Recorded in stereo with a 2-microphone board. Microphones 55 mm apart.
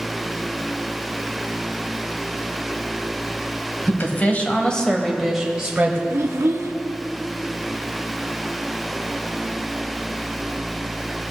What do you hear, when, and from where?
3.9 s a woman speaking: 40° left (ahead or behind), 1.5 m; by 6.0 s 30° right (ahead or behind), 1.3 m
6.1 s a child speaking: 60° right (ahead or behind), 1.1 m